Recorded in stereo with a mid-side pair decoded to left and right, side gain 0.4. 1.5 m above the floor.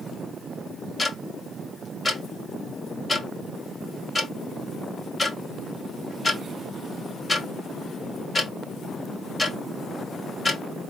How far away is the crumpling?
I don't hear crumpling.